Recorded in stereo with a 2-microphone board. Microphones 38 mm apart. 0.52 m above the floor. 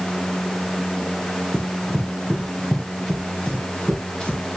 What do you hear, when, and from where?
1.5 s running footsteps: 25° left (ahead or behind), 1.4 m